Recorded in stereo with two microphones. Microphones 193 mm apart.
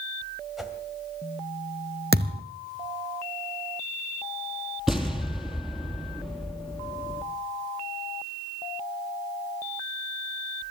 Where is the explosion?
Centre (ahead or behind), 3 m.